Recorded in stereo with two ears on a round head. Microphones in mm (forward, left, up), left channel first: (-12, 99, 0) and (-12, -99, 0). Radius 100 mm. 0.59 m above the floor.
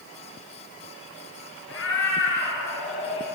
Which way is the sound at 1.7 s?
55° left (ahead or behind).